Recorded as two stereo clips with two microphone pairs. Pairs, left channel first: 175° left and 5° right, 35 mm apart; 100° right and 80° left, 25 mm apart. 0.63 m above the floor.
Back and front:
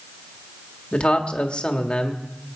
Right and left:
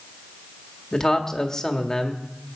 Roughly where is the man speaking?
Behind right.